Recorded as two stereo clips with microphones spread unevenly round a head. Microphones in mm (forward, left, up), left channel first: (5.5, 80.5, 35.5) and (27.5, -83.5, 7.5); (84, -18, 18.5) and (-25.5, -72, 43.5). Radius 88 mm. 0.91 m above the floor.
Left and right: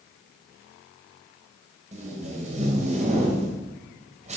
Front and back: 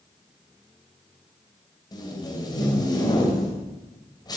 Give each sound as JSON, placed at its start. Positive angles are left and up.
{"t": 1.9, "sound": "tape being pulled", "azimuth_deg": -30, "distance_m": 3.0}